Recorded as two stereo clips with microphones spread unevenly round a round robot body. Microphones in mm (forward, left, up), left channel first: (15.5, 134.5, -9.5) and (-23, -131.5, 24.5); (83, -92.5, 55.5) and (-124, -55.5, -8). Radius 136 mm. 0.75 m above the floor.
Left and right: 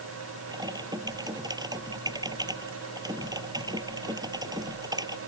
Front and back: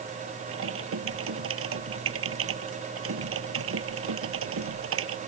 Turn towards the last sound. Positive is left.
turn(degrees=-175)